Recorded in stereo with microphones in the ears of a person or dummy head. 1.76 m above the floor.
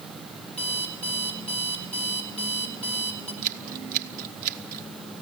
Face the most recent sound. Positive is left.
turn(degrees=-50)  # may be behind; listen again after turning